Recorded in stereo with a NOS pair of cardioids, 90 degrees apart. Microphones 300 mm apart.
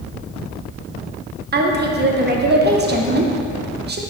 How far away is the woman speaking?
About 0.9 m.